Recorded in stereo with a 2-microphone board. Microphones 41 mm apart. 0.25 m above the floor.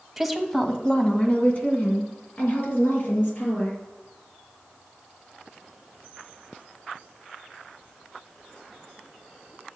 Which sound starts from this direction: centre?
A woman speaking, at 0.2 s.